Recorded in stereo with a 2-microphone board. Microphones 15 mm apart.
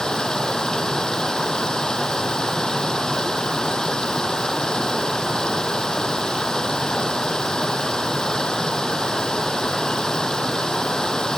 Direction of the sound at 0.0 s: 60° left (ahead or behind).